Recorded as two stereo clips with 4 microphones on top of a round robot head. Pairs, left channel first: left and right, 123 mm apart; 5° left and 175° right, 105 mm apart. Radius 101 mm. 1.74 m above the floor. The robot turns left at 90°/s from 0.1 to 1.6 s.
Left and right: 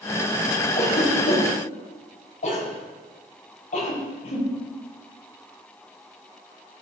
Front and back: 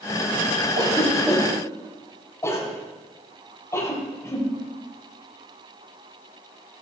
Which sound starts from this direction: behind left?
A cough, at 0.8 s.